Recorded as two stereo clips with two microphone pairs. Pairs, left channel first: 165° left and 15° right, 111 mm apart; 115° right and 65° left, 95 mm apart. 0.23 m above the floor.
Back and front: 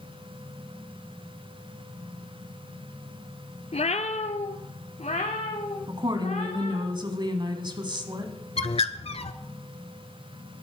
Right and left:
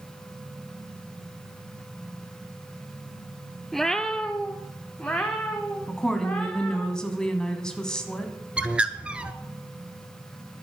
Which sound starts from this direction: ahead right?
A woman speaking, at 5.9 s.